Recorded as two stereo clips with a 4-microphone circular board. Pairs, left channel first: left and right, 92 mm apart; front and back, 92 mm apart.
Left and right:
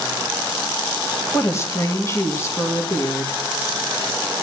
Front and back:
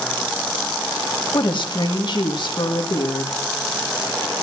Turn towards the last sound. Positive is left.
turn(degrees=30)